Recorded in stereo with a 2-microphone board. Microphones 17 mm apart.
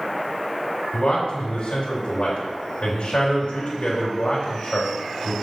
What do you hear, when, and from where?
0.9 s a man speaking: 80° left, 3 m